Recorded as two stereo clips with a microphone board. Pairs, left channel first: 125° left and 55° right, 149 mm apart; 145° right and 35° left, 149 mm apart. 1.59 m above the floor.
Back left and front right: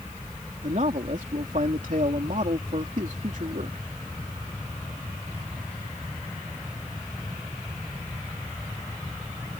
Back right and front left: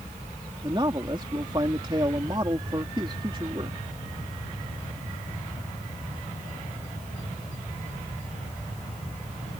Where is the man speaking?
25° right.